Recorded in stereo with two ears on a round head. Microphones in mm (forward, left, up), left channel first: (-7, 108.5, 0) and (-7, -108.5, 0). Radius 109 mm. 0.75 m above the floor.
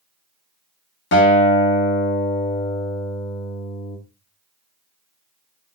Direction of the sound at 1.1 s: 50° left (ahead or behind).